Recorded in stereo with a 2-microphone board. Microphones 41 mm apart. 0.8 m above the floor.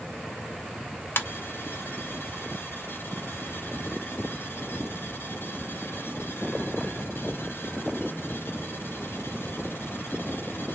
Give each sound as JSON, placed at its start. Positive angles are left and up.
{"t": 1.2, "sound": "a ringtone", "side_deg": 70, "distance_m": 0.5}